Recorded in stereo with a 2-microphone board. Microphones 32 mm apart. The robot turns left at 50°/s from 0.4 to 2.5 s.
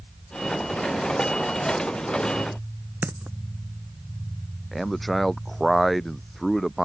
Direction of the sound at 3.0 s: 80° right.